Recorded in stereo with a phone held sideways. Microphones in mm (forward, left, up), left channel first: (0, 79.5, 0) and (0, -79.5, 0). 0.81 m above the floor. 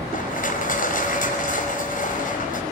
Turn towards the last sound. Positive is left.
turn(degrees=60)  # may be behind; listen again after turning